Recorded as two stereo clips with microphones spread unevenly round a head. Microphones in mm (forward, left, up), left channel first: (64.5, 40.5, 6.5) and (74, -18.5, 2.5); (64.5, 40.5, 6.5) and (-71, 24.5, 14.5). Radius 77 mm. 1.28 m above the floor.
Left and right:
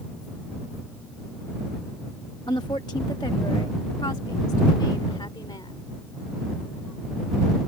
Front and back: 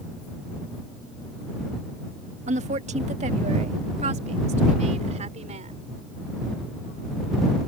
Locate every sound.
2.5 s a woman speaking: 150° left